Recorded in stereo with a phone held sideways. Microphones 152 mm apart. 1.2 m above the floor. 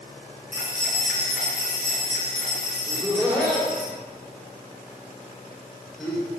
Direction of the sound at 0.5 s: 5° right (ahead or behind).